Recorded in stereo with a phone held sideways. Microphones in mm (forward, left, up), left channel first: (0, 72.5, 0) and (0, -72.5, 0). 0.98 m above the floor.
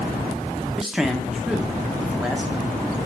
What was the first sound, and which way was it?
A man speaking, centre (ahead or behind).